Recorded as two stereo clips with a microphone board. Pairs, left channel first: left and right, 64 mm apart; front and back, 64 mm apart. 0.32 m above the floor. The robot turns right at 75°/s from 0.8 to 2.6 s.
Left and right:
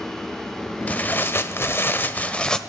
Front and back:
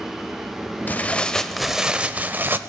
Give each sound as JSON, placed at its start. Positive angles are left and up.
{"t": 0.9, "sound": "tearing paper", "azimuth_deg": 35, "distance_m": 0.9}